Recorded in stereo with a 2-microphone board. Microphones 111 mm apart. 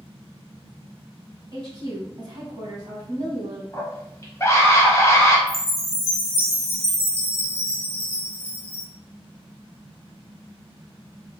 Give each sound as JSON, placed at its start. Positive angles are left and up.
{"t": 1.5, "sound": "a woman speaking", "side_deg": -40, "distance_m": 1.3}
{"t": 3.7, "sound": "a scream", "side_deg": 30, "distance_m": 1.0}
{"t": 5.5, "sound": "a chime", "side_deg": 30, "distance_m": 1.3}